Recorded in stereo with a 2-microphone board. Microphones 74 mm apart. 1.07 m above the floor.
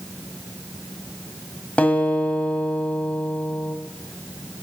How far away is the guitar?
About 1.5 m.